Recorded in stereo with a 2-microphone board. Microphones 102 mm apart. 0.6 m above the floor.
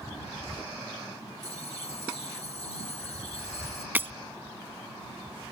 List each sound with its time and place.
1.4 s a bell: 80° left
4.0 s breaking glass: 20° right (ahead or behind)